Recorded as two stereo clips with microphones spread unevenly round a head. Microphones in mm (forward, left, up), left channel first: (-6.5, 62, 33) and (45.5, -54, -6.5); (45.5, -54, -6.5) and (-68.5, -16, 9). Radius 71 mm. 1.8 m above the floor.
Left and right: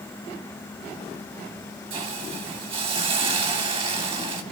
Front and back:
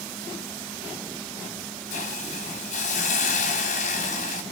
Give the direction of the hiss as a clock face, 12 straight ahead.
12 o'clock.